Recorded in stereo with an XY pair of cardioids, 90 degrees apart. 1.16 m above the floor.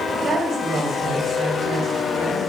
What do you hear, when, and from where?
0.2 s a woman speaking: 60° right, 3 m